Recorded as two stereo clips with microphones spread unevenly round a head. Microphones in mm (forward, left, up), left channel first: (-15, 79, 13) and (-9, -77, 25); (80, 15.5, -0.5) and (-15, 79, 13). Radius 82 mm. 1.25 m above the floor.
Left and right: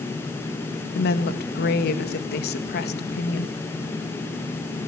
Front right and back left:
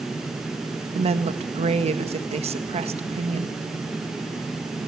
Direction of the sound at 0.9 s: 115° left.